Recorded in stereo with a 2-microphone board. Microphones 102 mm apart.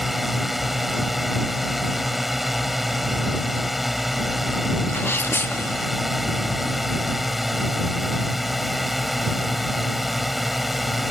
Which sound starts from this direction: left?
A sneeze, at 4.9 s.